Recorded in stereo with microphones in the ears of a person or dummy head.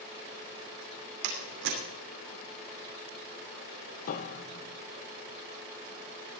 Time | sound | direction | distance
1.2 | a door slam | 65° right (ahead or behind) | 3 m
4.1 | a piano | 45° left (ahead or behind) | 0.9 m